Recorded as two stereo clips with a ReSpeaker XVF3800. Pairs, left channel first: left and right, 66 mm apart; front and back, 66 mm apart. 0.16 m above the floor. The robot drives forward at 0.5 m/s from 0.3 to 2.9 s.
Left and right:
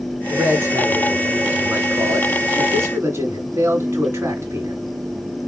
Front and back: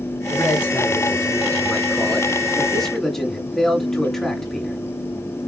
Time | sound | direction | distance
0.3 | a man speaking | 35° right | 2.5 m